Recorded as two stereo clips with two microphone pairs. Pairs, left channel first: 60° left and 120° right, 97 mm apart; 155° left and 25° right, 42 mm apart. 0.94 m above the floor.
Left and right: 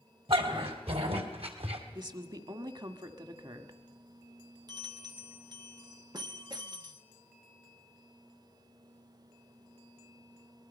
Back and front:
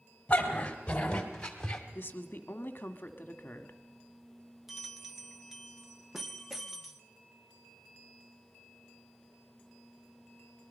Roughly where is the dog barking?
Behind right.